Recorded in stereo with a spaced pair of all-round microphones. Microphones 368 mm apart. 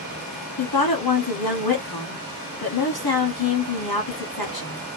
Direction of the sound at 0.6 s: 80° left.